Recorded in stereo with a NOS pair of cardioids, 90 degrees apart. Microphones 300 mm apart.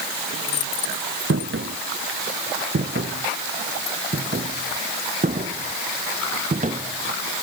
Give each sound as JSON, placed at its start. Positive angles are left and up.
{"t": 1.3, "sound": "footsteps", "azimuth_deg": -45}